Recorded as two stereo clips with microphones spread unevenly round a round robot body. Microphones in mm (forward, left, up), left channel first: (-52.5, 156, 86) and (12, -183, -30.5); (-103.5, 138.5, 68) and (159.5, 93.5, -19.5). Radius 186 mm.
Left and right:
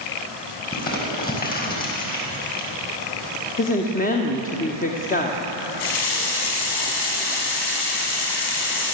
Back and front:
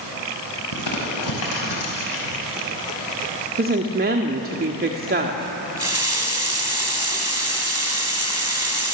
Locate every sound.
0.7 s crumpling: 170° left, 6 m
3.6 s a woman speaking: 25° left, 1.9 m
5.8 s a running tap: 70° left, 4 m